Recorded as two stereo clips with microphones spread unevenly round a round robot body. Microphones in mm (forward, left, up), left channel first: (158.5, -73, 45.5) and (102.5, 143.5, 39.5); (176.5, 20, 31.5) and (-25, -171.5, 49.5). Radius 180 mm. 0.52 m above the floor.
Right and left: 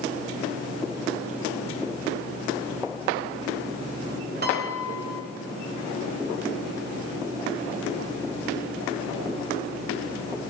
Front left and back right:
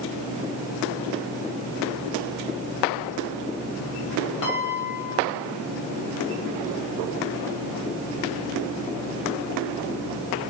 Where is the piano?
60° left, 2.5 m.